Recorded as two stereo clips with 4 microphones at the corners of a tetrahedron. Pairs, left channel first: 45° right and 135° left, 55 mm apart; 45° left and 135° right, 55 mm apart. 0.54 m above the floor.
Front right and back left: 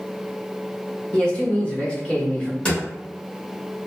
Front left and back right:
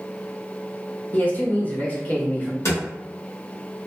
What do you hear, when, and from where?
1.1 s a man speaking: 15° left, 0.8 m
2.6 s a drawer: 25° left, 1.4 m